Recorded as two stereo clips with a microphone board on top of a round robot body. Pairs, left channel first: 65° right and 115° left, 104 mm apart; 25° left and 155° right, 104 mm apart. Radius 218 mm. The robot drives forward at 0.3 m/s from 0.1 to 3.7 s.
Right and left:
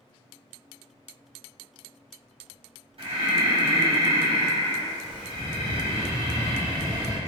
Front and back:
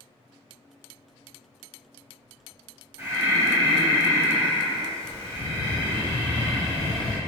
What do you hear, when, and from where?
3.0 s breathing: 140° left, 1.7 m; by 7.2 s 145° left, 1.8 m